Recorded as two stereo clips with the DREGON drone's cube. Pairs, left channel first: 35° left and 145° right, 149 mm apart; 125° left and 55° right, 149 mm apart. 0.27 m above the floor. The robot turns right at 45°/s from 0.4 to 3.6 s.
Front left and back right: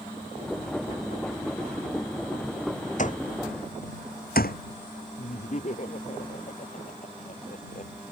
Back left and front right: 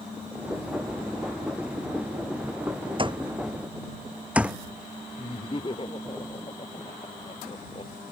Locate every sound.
3.0 s an alarm clock: straight ahead; by 4.6 s 25° left
5.2 s laughter: 70° left